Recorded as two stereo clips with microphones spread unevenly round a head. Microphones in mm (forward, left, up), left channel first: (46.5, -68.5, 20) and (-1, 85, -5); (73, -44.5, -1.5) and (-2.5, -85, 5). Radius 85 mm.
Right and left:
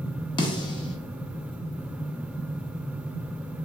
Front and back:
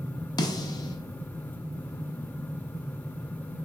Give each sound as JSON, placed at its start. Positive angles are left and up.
{"t": 0.4, "sound": "a snare drum", "azimuth_deg": -15, "distance_m": 0.6}